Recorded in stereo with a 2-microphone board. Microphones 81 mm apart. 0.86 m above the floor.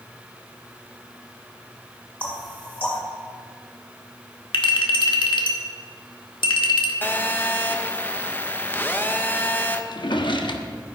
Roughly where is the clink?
Left.